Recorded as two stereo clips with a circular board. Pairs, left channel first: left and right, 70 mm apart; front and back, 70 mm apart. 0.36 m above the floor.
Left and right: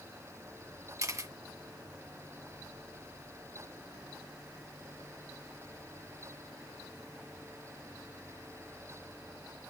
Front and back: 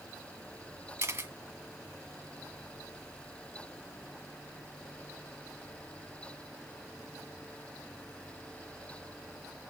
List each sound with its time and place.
1.0 s a camera shutter: 125° right, 1.5 m